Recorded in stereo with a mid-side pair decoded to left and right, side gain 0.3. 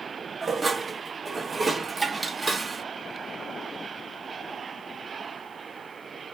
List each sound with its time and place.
0.4 s dishes clattering: 35° right, 0.9 m